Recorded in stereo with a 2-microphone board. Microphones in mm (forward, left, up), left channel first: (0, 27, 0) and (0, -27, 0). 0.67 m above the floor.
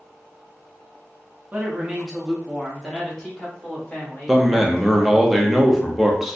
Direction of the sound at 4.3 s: Centre (ahead or behind).